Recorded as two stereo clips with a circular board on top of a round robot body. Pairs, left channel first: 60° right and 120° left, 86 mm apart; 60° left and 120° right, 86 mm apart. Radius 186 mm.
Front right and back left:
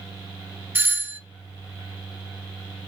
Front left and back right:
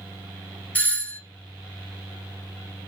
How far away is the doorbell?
About 1.2 m.